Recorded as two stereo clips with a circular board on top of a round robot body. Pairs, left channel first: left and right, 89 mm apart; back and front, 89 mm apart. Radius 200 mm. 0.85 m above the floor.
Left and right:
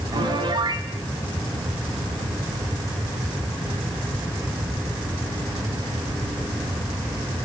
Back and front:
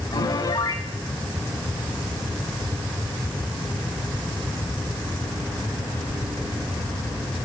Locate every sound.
0.1 s a piano: 135° right, 1.9 m